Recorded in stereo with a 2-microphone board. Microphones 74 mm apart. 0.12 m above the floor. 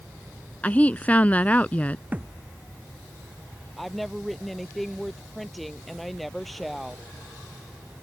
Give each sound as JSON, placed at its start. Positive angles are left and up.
{"t": 0.6, "sound": "a woman speaking", "side_deg": 20}
{"t": 2.1, "sound": "a thud", "side_deg": -20}
{"t": 3.8, "sound": "a woman speaking", "side_deg": 0}